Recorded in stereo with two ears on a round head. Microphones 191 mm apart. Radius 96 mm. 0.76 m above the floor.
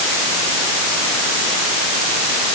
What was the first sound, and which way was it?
Only background noise.